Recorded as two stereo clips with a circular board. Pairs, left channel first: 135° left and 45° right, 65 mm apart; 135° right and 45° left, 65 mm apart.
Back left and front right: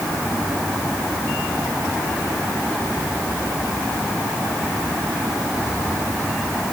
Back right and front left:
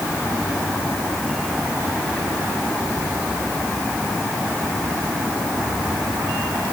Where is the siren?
I don't hear a siren.